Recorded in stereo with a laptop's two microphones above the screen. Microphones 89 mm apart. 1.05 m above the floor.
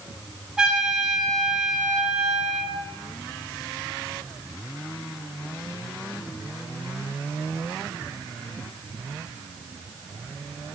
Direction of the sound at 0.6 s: 10° right (ahead or behind).